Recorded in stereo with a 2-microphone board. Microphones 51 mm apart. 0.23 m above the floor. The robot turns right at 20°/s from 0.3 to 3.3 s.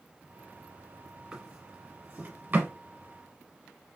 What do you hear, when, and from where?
1.3 s a drawer: 10° right (ahead or behind), 1.3 m; by 2.7 s 35° right (ahead or behind), 1.3 m